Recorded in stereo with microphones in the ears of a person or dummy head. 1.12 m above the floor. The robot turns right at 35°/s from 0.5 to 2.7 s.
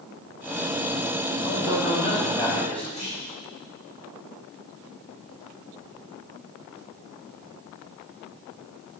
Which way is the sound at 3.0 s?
35° left (ahead or behind).